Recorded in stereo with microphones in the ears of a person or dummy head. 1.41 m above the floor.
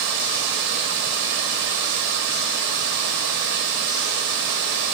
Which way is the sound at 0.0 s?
55° right (ahead or behind).